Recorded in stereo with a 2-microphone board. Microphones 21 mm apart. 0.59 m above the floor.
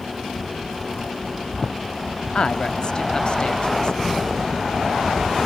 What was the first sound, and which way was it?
A man speaking, 40° left (ahead or behind).